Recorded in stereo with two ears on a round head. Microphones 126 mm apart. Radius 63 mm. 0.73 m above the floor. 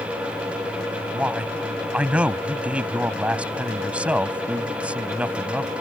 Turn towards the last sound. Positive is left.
turn(degrees=-10)  # may be behind; listen again after turning